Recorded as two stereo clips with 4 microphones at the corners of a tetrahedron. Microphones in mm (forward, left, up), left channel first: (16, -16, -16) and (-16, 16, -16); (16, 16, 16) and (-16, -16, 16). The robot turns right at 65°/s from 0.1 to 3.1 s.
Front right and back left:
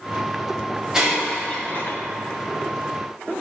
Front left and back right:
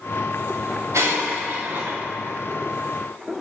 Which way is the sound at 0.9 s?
150° right.